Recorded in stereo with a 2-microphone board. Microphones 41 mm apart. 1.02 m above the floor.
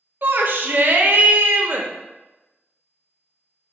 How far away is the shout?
About 0.6 m.